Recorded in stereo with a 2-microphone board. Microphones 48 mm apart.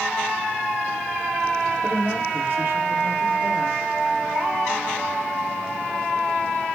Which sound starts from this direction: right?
A woman speaking, at 1.8 s.